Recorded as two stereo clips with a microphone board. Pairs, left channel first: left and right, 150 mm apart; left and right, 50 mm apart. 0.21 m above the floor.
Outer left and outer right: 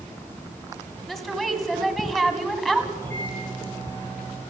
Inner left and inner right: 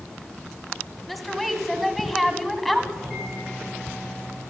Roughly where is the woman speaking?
Centre.